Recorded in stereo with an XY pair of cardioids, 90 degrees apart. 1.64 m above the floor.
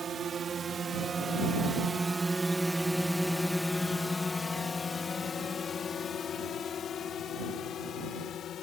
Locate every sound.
0.0 s a drone: 50° right; by 8.6 s 70° left